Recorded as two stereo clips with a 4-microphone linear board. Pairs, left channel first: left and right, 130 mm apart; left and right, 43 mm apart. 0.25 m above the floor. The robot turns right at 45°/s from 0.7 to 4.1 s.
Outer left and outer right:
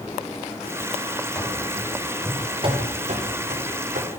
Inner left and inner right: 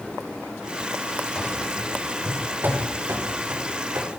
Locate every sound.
1.4 s running footsteps: 15° left (ahead or behind), 7 m; by 4.1 s 75° right (ahead or behind), 5.5 m